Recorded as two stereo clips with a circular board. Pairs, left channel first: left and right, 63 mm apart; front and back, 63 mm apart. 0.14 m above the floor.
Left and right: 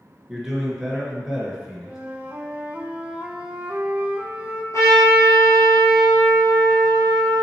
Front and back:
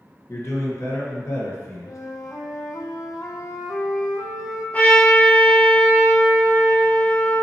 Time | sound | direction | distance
0.3 | a man speaking | 10° right | 2 m
1.9 | a flute | 20° right | 0.9 m
4.7 | a trumpet | 65° left | 1.8 m